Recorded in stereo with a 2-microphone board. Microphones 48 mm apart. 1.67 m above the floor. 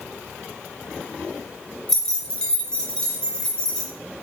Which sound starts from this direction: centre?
Keys jangling, at 1.9 s.